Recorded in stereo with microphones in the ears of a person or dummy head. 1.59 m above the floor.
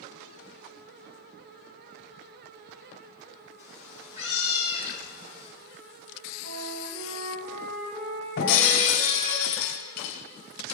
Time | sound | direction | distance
3.6 | a cat meowing | 20° right (ahead or behind) | 7 m
6.4 | a flute | 50° right (ahead or behind) | 3 m
8.4 | breaking glass | 55° left (ahead or behind) | 3 m